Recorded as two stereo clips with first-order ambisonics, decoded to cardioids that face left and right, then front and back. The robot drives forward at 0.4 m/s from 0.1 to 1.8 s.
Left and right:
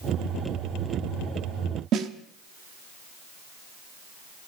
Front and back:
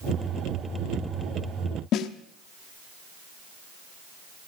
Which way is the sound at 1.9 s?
45° right.